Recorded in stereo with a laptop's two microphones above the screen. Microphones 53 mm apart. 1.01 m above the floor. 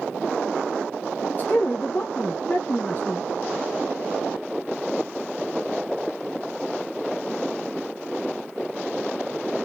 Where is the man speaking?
35° left (ahead or behind), 1.0 m.